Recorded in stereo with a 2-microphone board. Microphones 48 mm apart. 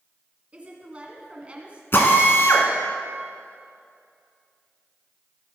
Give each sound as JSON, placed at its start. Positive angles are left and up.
{"t": 0.5, "sound": "a woman speaking", "side_deg": -25, "distance_m": 1.8}
{"t": 1.9, "sound": "a drill", "side_deg": 55, "distance_m": 1.4}